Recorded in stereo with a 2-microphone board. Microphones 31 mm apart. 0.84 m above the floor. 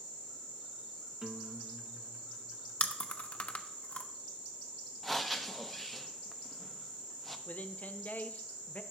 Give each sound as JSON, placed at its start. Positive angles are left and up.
{"t": 1.2, "sound": "a guitar", "side_deg": -25, "distance_m": 0.5}
{"t": 2.8, "sound": "chewing", "side_deg": 40, "distance_m": 0.6}
{"t": 5.0, "sound": "breathing", "side_deg": 0, "distance_m": 0.5}
{"t": 7.5, "sound": "a man speaking", "side_deg": 55, "distance_m": 0.5}